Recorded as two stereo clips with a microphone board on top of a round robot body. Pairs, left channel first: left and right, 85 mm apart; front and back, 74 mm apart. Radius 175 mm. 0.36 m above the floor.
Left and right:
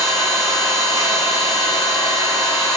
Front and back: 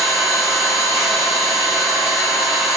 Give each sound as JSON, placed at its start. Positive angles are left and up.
{"t": 0.0, "sound": "an engine running", "azimuth_deg": -95, "distance_m": 1.5}